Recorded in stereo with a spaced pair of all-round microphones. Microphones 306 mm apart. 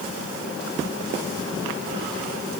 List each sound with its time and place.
Only background noise.